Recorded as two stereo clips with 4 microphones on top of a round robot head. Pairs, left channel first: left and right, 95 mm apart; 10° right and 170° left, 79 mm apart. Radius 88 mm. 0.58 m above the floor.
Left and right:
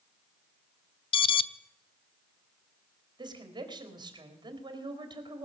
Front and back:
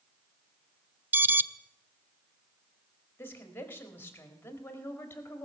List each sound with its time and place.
1.1 s an alarm: 105° left, 0.5 m
3.2 s a woman speaking: 70° right, 1.8 m